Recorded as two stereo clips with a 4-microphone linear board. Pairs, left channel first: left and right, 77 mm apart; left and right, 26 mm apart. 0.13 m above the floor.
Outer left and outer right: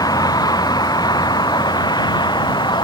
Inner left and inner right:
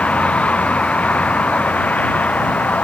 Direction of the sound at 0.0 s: 60° left (ahead or behind).